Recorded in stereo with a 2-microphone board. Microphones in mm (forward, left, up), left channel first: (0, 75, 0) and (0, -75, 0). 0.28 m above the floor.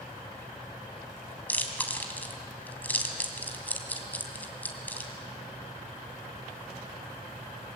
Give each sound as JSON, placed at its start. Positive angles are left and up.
{"t": 1.5, "sound": "chewing", "side_deg": 10, "distance_m": 2.5}